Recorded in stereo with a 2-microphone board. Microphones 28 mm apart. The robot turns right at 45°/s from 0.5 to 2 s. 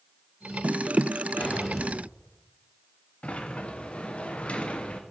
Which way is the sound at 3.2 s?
45° left (ahead or behind).